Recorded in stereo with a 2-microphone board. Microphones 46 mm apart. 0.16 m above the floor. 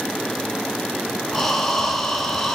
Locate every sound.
1.3 s breathing: 5° left (ahead or behind), 0.8 m